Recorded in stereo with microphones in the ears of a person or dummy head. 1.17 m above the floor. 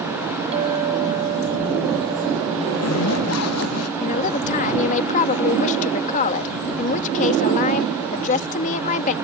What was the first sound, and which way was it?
A clink, 30° right (ahead or behind).